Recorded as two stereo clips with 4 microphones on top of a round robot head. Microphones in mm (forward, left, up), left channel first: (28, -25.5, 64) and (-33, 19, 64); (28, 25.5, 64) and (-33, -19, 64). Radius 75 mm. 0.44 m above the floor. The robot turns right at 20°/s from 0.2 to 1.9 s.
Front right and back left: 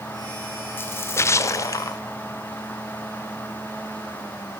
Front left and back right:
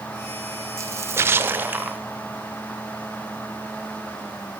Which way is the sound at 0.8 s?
95° right.